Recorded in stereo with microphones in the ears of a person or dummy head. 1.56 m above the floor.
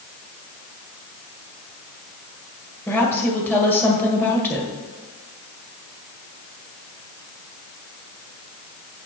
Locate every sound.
2.9 s a woman speaking: 10° left (ahead or behind), 1.6 m